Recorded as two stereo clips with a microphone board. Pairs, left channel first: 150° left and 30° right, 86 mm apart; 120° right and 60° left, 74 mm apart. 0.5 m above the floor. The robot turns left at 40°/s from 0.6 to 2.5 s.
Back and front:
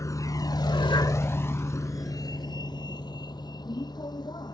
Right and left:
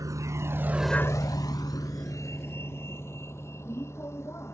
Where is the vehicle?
100° left; by 4.5 s 175° right.